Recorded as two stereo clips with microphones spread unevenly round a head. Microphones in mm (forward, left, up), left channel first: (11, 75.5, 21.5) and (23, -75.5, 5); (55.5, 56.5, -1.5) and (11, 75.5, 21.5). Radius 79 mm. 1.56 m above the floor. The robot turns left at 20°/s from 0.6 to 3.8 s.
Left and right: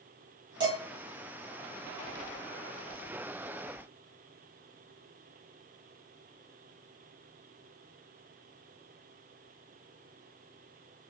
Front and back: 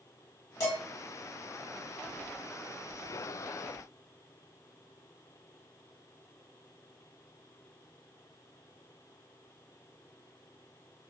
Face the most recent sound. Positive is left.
turn(degrees=-85)